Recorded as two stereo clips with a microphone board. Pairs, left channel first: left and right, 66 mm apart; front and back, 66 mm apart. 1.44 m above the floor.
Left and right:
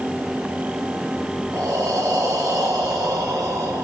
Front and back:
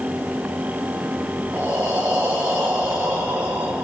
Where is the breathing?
120° right, 4.5 m.